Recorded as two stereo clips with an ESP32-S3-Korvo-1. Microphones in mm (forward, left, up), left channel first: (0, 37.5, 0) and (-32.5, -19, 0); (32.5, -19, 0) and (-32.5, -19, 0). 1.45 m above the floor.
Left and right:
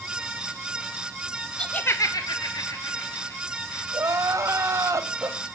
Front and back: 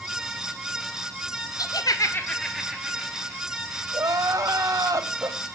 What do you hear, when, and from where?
1.6 s laughter: 15° right, 0.9 m; by 3.8 s 110° left, 2.5 m
3.9 s crying: 155° right, 1.2 m